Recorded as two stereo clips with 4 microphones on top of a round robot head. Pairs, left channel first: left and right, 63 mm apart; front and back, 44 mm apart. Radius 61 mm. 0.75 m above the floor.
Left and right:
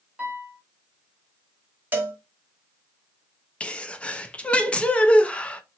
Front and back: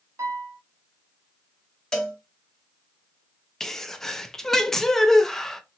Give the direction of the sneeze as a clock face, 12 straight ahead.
10 o'clock.